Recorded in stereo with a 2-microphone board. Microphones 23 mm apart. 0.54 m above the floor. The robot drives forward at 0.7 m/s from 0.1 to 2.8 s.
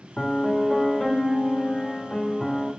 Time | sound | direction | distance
0.2 | a piano | 35° left (ahead or behind) | 1.6 m